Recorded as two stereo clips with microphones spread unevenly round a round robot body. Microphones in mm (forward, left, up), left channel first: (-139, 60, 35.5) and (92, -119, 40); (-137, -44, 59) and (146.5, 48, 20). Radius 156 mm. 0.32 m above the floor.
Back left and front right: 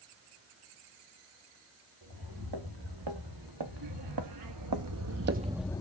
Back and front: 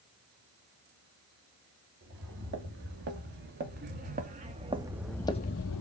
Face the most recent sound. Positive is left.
turn(degrees=-145)